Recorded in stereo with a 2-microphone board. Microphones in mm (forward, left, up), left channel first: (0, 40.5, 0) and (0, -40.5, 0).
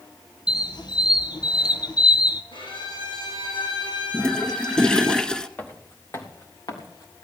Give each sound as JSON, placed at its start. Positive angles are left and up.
{"t": 0.5, "sound": "a squeak", "side_deg": 60, "distance_m": 1.0}
{"t": 2.5, "sound": "a violin", "side_deg": 75, "distance_m": 7.5}
{"t": 4.1, "sound": "a toilet flushing", "side_deg": 10, "distance_m": 0.7}
{"t": 5.6, "sound": "footsteps", "side_deg": 20, "distance_m": 1.9}